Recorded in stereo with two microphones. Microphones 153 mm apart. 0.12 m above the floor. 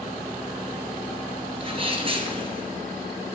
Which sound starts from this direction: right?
A sneeze, at 1.6 s.